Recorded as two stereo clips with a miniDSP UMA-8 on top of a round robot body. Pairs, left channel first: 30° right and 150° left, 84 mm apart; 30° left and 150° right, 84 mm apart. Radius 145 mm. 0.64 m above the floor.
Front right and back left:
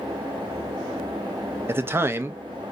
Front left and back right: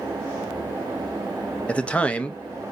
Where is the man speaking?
100° left, 0.8 m.